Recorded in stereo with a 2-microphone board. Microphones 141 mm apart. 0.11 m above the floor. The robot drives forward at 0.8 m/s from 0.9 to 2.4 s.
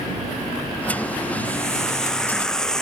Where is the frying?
5° left (ahead or behind).